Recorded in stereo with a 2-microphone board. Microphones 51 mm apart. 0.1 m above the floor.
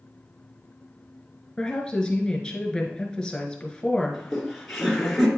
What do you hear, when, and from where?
1.6 s a woman speaking: 15° left (ahead or behind), 1.4 m
4.1 s laughter: 5° left (ahead or behind), 1.6 m